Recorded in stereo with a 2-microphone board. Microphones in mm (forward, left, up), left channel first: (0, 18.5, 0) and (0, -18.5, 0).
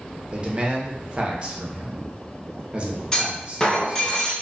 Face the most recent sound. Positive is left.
turn(degrees=20)  # may be behind; listen again after turning